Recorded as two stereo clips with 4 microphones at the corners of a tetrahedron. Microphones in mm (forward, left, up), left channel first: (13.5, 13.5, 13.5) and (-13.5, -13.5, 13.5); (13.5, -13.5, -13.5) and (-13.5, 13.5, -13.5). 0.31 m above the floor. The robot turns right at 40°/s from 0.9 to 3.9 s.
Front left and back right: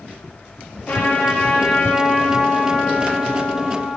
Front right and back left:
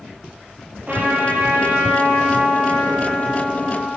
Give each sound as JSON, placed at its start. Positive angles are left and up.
{"t": 0.9, "sound": "a trumpet", "azimuth_deg": 85, "distance_m": 4.0}